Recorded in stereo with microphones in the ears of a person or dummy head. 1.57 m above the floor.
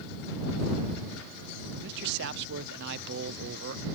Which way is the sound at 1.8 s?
60° right (ahead or behind).